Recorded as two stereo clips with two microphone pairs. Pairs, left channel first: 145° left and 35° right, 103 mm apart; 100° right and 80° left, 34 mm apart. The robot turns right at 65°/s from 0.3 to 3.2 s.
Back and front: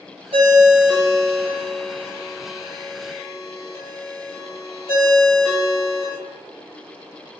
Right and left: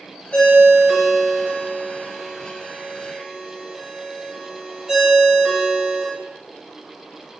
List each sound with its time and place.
0.3 s a ringtone: 40° right, 1.3 m; by 6.1 s 150° left, 1.3 m